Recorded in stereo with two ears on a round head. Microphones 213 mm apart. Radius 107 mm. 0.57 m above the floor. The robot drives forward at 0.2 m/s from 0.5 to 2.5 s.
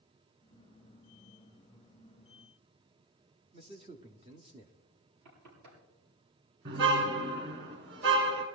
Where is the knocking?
85° right, 8 m.